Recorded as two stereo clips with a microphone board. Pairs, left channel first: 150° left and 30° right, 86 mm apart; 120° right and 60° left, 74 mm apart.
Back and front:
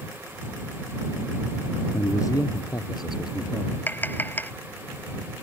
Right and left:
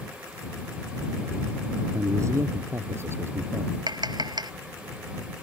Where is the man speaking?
100° left; by 3.8 s 120° left.